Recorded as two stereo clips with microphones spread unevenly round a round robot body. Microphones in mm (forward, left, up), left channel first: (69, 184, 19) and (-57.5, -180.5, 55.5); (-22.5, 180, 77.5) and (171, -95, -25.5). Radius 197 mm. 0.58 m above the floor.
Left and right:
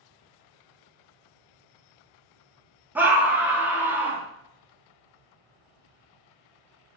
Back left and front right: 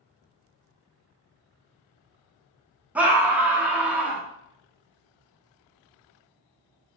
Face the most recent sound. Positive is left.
turn(degrees=-15)